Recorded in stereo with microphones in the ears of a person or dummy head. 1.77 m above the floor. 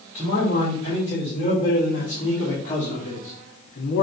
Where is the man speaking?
40° left (ahead or behind), 4 m; by 4.0 s 50° left (ahead or behind), 1.4 m.